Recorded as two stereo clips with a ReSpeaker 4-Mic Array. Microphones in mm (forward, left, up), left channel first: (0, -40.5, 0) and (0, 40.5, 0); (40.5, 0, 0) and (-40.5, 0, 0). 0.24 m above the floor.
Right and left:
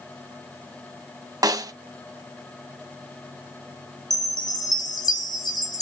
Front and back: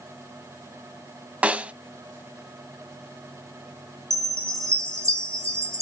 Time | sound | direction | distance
1.4 | a snare drum | 110° left | 0.5 m
4.1 | a chime | 125° right | 3 m